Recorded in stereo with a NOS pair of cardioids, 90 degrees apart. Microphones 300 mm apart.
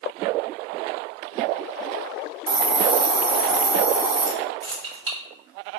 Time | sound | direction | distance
2.5 | a hiss | 35° right | 0.7 m
4.6 | keys jangling | 40° right | 1.5 m